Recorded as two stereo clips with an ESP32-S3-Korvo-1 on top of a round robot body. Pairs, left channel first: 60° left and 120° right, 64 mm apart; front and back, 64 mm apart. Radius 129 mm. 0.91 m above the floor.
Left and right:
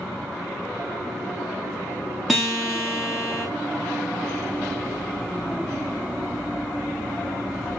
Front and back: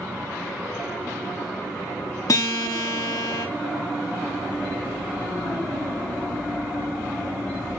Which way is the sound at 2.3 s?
30° right.